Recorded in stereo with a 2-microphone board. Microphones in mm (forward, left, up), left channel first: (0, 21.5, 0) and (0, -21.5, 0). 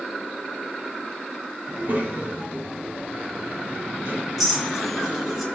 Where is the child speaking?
45° right (ahead or behind), 2 m; by 5.4 s 55° right (ahead or behind), 4.5 m.